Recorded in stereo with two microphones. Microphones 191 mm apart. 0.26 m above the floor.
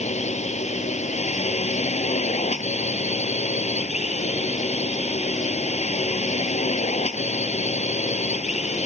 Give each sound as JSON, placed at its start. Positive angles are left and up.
{"t": 0.0, "sound": "a drone", "side_deg": 35}